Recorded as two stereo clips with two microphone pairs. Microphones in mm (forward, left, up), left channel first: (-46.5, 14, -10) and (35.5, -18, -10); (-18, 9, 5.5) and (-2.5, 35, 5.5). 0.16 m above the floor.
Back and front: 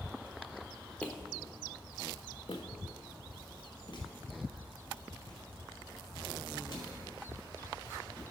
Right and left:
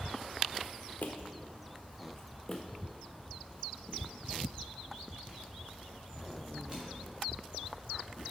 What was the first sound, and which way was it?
Footsteps, 125° right.